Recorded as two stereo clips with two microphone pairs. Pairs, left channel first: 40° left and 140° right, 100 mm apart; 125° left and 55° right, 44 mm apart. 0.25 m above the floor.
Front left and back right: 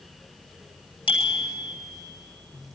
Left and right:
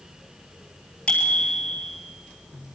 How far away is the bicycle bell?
About 3.5 m.